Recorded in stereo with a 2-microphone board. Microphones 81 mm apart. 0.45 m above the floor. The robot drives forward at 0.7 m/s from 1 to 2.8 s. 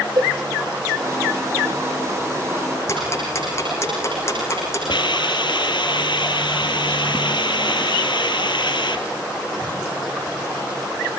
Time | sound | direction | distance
0.2 | a cowbell | 55° right (ahead or behind) | 2.5 m
2.9 | ticking | 30° left (ahead or behind) | 9.5 m
4.9 | a hiss | 70° left (ahead or behind) | 2 m